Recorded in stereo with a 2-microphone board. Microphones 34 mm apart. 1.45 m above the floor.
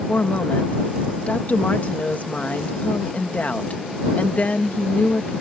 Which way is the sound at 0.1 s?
45° left (ahead or behind).